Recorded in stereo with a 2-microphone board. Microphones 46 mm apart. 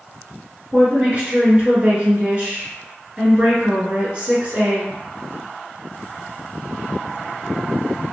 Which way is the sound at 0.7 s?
30° right (ahead or behind).